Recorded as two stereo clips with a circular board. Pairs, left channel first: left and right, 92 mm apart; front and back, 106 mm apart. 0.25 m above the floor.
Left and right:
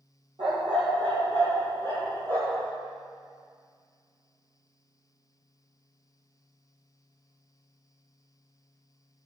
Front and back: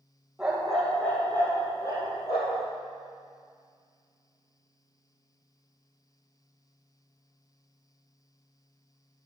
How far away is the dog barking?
About 3.5 m.